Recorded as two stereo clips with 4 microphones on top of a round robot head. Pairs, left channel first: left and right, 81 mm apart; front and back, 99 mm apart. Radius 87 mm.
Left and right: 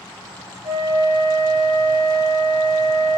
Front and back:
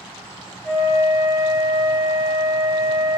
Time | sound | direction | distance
0.6 | a flute | 85° right | 2.5 m